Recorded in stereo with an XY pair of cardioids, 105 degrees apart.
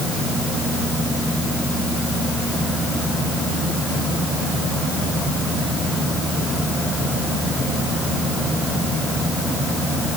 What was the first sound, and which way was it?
Only background noise.